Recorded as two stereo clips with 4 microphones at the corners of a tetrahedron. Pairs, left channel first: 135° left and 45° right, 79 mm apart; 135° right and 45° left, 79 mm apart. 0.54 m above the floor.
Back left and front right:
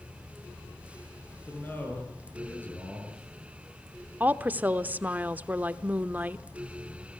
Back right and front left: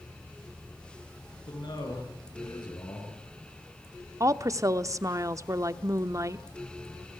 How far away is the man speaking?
About 8 m.